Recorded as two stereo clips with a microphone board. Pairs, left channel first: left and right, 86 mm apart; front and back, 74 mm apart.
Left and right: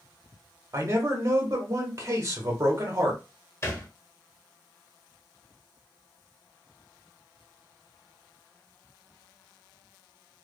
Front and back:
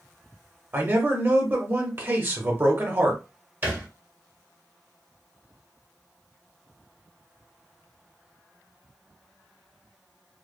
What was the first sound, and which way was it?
A man speaking, 130° right.